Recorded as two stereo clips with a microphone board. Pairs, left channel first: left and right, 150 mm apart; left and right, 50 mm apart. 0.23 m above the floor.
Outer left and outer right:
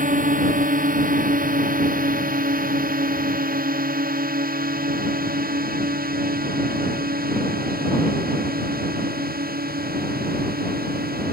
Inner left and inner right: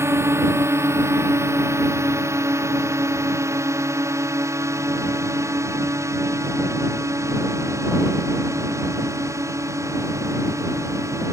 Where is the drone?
60° right (ahead or behind); by 11.3 s 80° right.